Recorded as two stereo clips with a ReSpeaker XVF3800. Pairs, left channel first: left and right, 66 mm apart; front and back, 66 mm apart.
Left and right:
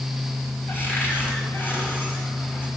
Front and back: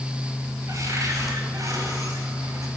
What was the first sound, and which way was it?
A cupboard door, 145° left.